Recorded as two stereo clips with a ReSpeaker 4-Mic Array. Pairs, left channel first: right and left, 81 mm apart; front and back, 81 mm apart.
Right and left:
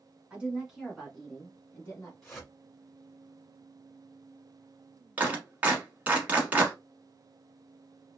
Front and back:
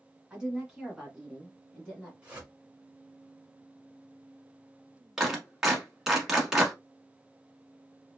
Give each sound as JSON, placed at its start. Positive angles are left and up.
{"t": 0.3, "sound": "a woman speaking", "azimuth_deg": 130, "distance_m": 1.2}
{"t": 2.2, "sound": "a whoosh", "azimuth_deg": -155, "distance_m": 1.4}
{"t": 5.2, "sound": "a clap", "azimuth_deg": 110, "distance_m": 1.0}